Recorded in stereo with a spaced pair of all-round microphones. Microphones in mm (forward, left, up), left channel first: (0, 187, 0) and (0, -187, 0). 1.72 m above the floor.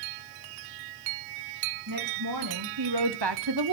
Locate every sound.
1.9 s a woman speaking: 55° right (ahead or behind), 2.5 m; by 3.8 s 60° right (ahead or behind), 0.9 m